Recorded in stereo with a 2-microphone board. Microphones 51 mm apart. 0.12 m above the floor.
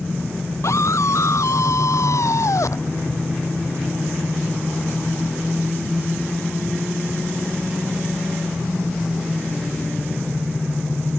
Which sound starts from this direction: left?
A scream, at 0.6 s.